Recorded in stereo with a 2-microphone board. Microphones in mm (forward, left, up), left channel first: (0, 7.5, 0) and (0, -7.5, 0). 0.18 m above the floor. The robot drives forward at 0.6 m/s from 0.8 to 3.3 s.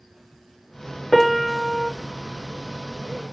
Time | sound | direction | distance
1.1 | a piano | 5° left (ahead or behind) | 1.2 m